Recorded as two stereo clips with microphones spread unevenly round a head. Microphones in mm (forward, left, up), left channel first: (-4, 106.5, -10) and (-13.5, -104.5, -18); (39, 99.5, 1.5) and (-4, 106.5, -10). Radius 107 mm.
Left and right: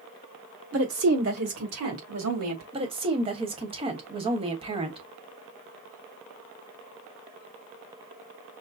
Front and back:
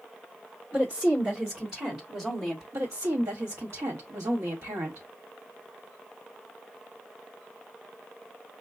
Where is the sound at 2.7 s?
155° right, 1.2 m.